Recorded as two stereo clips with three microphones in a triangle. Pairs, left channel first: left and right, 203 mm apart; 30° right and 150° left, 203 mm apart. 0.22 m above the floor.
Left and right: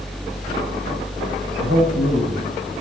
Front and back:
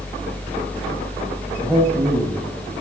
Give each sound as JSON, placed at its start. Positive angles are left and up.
{"t": 1.6, "sound": "a man speaking", "azimuth_deg": -115, "distance_m": 9.0}